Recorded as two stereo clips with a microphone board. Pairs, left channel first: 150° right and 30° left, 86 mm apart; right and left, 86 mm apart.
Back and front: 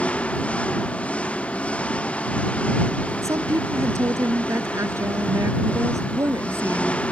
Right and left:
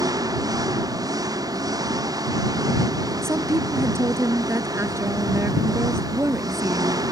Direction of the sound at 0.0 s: 135° left.